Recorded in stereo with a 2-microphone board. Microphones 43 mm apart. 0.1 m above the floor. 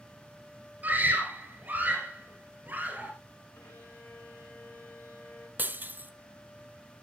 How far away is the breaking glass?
About 0.6 m.